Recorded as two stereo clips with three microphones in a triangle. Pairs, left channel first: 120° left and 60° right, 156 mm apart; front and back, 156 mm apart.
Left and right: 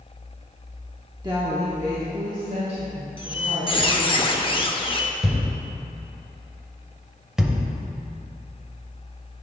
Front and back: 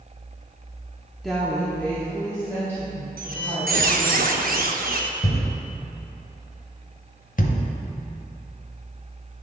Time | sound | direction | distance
1.2 | a woman speaking | 90° right | 0.7 m
3.2 | a squeak | 170° left | 0.5 m
5.2 | a thud | 30° left | 0.7 m